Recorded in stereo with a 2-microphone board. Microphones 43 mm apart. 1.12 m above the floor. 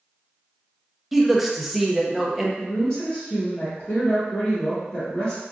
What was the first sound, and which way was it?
A man speaking, 5° right (ahead or behind).